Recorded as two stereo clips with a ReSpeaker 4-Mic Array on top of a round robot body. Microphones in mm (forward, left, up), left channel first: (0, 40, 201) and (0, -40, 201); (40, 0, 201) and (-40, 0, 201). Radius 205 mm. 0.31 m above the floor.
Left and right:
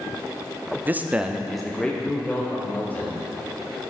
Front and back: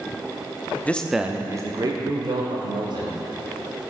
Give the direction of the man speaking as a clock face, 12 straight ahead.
2 o'clock.